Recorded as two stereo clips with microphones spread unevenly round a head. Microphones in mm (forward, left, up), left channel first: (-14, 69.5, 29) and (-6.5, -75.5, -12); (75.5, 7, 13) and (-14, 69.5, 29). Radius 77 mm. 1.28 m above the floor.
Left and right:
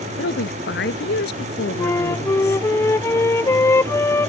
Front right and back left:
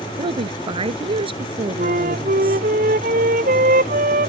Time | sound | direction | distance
0.2 | a woman speaking | 105° left | ?
1.8 | a flute | 165° left | ?